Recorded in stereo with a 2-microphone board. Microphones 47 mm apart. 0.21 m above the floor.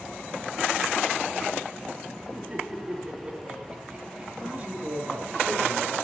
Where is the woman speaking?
35° right (ahead or behind), 3.5 m.